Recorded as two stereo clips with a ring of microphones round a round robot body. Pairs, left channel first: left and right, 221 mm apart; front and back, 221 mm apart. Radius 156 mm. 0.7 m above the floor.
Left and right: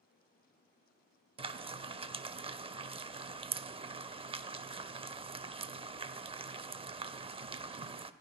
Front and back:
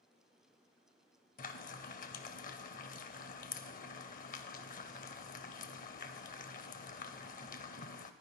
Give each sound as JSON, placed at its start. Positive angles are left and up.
{"t": 1.4, "sound": "frying", "azimuth_deg": -35, "distance_m": 0.5}